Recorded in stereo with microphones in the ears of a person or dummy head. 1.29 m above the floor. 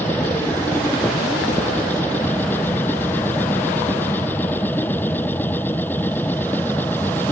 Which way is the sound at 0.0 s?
15° left (ahead or behind).